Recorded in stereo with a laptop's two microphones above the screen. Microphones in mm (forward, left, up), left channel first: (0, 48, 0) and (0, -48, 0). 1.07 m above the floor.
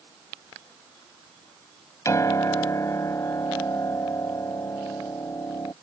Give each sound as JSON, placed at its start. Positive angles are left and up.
{"t": 2.0, "sound": "a piano", "side_deg": 30}